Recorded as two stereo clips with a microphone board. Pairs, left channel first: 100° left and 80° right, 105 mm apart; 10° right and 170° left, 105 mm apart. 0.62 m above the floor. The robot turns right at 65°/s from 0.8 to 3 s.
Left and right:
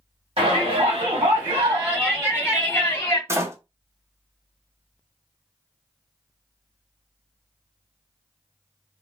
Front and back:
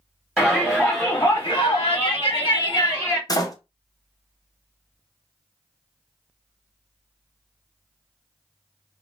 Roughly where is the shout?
Right.